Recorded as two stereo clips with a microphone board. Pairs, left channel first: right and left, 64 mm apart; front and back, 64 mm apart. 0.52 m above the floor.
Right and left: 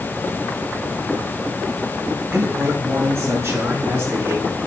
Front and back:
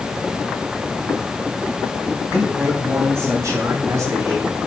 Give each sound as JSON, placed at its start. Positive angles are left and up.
{"t": 2.3, "sound": "a man speaking", "azimuth_deg": 130, "distance_m": 6.5}